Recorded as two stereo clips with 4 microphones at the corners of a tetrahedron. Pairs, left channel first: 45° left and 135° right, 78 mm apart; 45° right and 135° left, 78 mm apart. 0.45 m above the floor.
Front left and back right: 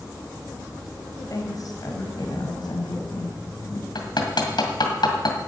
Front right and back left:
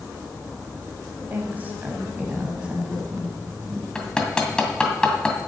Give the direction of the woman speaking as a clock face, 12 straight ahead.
9 o'clock.